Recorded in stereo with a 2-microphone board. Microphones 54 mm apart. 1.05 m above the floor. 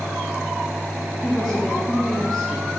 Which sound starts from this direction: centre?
A woman speaking, at 1.2 s.